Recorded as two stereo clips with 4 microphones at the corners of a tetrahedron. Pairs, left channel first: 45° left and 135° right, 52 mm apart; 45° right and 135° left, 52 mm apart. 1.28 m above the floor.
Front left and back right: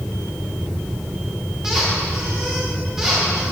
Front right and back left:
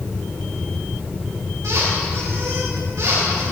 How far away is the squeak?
About 3 m.